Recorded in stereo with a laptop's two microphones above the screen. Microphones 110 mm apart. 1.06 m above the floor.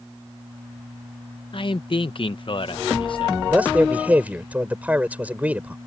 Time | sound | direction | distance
1.5 | a man speaking | 50° left (ahead or behind) | ?
3.5 | a man speaking | 15° right (ahead or behind) | ?